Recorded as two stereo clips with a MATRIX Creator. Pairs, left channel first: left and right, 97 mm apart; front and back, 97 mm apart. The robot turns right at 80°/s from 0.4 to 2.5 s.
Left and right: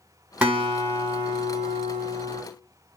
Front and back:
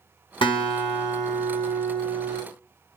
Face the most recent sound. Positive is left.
turn(degrees=150)